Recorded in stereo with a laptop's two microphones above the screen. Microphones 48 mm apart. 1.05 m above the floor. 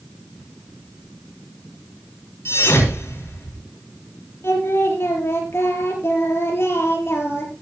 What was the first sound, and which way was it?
A thud, 60° left (ahead or behind).